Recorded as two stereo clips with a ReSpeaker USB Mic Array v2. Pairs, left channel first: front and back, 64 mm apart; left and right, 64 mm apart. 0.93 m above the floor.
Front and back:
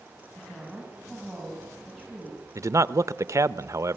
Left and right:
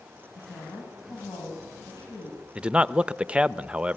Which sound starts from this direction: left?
A woman speaking, at 0.3 s.